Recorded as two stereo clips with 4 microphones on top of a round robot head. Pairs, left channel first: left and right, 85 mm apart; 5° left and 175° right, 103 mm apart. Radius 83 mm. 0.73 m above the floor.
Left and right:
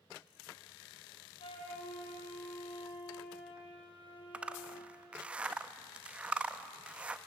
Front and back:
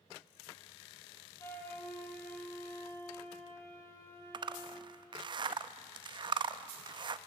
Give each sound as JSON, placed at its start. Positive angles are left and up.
{"t": 1.4, "sound": "a flute", "azimuth_deg": 70, "distance_m": 3.0}
{"t": 4.3, "sound": "a zipper", "azimuth_deg": -165, "distance_m": 0.6}